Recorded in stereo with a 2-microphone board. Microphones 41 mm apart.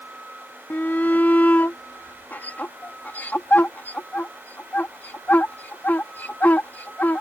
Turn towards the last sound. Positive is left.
turn(degrees=55)  # may be behind; listen again after turning